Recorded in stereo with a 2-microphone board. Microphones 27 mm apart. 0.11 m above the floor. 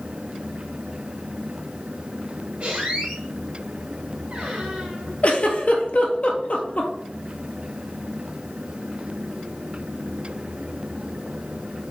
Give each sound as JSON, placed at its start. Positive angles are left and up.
{"t": 2.6, "sound": "a squeak", "side_deg": -40, "distance_m": 2.0}
{"t": 5.2, "sound": "a giggle", "side_deg": 55, "distance_m": 0.8}